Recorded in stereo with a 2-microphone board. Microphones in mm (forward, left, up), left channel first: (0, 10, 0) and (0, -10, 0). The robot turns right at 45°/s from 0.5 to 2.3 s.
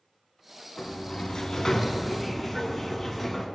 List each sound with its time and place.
0.8 s a sliding door: 110° left, 1.6 m; by 3.5 s straight behind, 1.6 m